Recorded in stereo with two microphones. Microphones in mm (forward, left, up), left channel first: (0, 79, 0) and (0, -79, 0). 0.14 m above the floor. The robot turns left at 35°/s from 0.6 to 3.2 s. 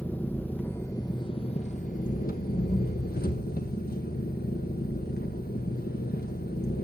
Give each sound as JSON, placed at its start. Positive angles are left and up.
{"t": 0.0, "sound": "an engine running", "azimuth_deg": 170, "distance_m": 1.6}